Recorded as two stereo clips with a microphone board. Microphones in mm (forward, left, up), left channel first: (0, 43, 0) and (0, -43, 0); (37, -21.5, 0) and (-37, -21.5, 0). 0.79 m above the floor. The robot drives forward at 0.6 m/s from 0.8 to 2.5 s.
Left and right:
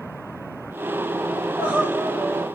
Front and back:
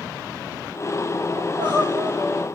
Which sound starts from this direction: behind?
Crying, at 1.4 s.